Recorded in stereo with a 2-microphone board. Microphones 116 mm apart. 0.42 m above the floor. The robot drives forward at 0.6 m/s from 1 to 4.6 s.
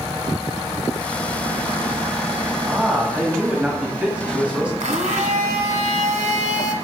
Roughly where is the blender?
Right.